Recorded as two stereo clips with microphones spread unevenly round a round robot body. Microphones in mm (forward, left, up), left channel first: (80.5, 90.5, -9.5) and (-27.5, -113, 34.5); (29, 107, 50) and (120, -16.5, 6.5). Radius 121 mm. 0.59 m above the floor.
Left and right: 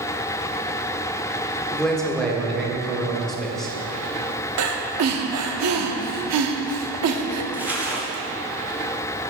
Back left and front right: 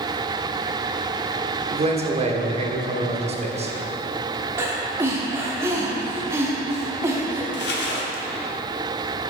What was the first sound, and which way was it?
A man speaking, 20° right.